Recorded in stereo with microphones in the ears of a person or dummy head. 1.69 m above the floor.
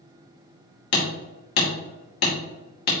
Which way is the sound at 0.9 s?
55° left (ahead or behind).